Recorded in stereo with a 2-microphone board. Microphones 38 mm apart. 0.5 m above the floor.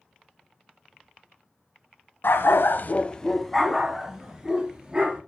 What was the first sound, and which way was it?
A dog barking, 70° left (ahead or behind).